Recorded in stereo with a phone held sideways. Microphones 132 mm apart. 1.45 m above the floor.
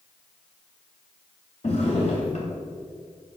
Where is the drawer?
55° left (ahead or behind), 2.5 m.